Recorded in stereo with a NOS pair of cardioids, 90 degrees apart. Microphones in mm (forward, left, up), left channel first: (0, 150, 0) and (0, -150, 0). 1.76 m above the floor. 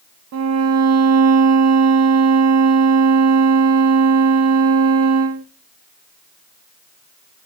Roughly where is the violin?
Ahead right.